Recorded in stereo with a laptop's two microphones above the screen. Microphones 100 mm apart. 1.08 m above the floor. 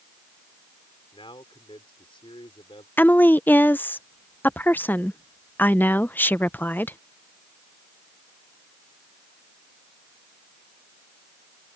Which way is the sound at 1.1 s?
70° left (ahead or behind).